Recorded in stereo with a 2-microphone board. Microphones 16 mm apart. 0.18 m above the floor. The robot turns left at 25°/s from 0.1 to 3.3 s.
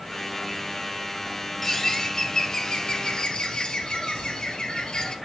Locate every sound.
1.6 s a bird: 160° left, 1.2 m; by 5.2 s 115° left, 1.2 m